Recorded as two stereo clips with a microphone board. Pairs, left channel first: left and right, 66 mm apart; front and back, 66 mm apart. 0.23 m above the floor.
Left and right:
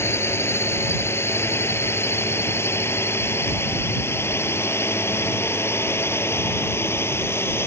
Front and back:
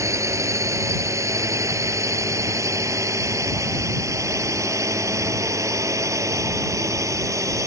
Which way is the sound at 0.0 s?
140° left.